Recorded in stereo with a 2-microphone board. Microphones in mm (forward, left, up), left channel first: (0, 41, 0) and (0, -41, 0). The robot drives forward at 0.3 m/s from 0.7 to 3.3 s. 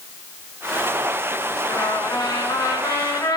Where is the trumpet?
50° left (ahead or behind), 1.7 m; by 3.4 s 60° left (ahead or behind), 1.5 m.